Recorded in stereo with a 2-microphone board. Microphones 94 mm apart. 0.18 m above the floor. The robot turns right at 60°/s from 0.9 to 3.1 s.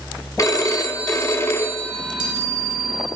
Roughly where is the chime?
Behind.